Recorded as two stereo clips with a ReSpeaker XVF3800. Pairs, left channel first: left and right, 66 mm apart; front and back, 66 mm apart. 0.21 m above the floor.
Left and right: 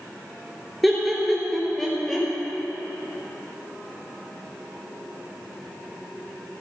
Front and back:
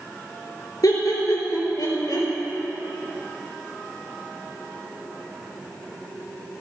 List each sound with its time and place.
0.8 s laughter: straight ahead, 3.5 m; by 2.3 s 5° left, 4 m